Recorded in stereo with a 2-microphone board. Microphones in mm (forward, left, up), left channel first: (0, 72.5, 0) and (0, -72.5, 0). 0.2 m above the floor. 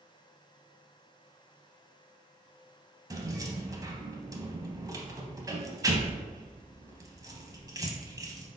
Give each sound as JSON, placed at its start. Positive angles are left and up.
{"t": 3.1, "sound": "keys jangling", "side_deg": -25, "distance_m": 0.7}